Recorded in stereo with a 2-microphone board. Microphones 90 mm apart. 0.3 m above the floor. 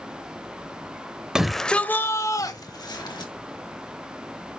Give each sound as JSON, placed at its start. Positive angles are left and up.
{"t": 1.4, "sound": "a shout", "side_deg": -5, "distance_m": 0.9}